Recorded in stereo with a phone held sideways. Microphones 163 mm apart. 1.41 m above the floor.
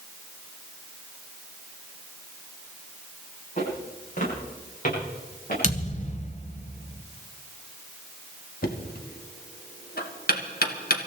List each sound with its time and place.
3.6 s footsteps: 50° left (ahead or behind), 9 m; by 5.5 s 60° left (ahead or behind), 10 m
5.6 s a thud: 50° left (ahead or behind), 1.6 m
8.6 s knocking: 70° left (ahead or behind), 1.7 m